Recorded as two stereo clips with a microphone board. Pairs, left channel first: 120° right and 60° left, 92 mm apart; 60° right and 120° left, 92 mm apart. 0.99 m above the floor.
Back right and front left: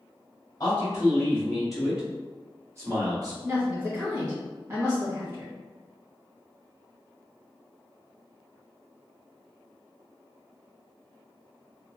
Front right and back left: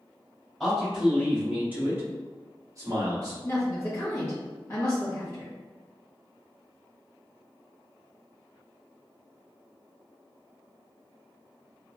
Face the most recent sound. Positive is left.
turn(degrees=0)